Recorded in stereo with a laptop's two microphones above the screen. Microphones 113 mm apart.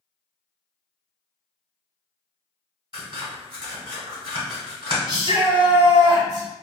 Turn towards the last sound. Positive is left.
turn(degrees=-35)  # may be behind; listen again after turning